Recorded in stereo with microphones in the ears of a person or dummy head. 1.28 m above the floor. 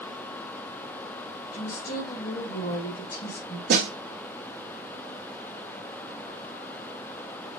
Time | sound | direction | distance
1.5 | a woman speaking | 45° left (ahead or behind) | 1.9 m
3.7 | a snare drum | 65° right (ahead or behind) | 1.2 m